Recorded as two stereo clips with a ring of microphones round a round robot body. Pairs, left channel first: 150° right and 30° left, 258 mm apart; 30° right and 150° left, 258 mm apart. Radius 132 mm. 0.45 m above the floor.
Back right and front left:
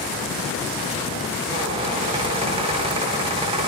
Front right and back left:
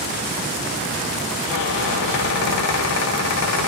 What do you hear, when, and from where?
1.5 s a squeak: 35° right, 0.6 m